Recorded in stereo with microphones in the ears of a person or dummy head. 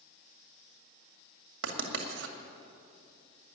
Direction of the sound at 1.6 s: 85° right.